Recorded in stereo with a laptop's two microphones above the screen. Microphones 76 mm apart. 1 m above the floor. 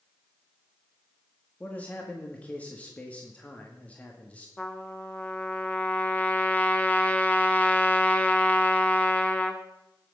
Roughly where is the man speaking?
Centre.